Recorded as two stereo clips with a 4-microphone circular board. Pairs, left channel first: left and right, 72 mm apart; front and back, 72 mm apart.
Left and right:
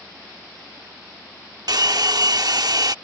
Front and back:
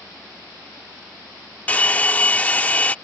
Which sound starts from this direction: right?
A hair dryer, at 1.7 s.